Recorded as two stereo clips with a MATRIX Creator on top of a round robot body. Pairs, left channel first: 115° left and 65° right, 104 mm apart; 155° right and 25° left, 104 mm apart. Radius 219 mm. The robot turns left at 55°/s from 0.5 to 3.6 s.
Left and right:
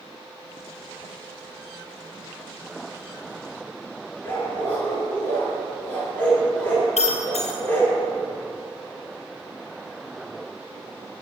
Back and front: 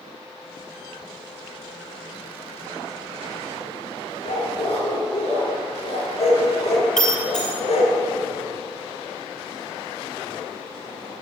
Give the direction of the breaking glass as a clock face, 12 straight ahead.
8 o'clock.